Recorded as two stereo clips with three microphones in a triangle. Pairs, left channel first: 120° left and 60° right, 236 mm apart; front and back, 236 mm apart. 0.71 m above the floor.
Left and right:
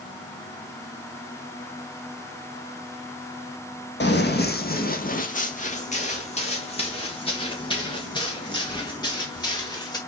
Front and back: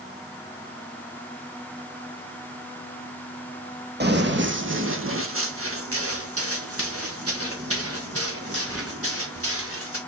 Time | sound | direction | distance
4.0 | running footsteps | 150° left | 1.3 m